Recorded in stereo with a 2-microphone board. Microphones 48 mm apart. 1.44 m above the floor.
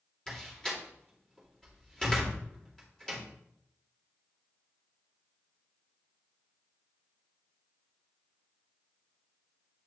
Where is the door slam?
15° left (ahead or behind), 2 m.